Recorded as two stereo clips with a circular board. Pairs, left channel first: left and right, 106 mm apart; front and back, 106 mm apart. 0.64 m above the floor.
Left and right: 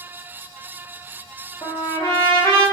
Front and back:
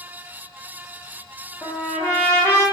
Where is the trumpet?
55° left, 1.8 m.